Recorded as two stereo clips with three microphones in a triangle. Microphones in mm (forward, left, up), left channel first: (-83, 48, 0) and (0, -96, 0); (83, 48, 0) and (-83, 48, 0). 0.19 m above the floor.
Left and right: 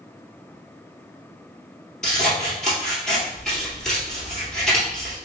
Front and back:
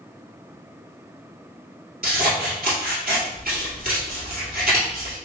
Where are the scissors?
155° right, 1.7 m.